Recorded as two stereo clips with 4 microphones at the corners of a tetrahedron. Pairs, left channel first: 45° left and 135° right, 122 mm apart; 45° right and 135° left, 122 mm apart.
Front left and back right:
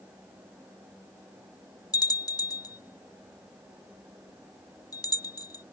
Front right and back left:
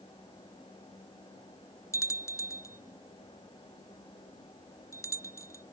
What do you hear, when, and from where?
1.9 s a bell: 5° left